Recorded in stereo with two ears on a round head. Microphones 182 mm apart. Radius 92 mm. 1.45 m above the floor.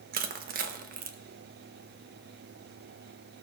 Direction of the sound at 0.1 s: 45° right (ahead or behind).